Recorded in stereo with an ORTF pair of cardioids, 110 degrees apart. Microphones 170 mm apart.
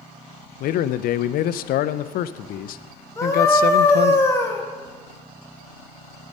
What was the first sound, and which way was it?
A man speaking, 60° left.